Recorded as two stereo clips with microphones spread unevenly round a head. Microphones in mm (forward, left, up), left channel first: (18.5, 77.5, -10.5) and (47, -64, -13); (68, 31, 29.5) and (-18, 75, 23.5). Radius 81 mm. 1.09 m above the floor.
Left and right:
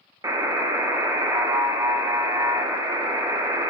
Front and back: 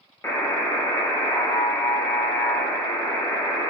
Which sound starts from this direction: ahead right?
A buzzer, at 0.2 s.